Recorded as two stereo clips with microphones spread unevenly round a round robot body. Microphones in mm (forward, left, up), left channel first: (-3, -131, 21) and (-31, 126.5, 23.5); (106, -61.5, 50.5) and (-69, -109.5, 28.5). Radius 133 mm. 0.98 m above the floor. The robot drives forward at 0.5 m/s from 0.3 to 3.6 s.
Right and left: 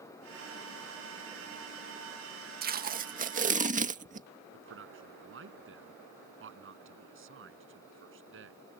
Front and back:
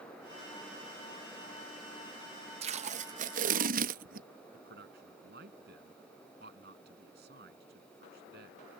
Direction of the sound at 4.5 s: 140° left.